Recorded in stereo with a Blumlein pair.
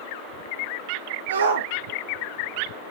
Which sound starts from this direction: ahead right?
A shout, at 1.3 s.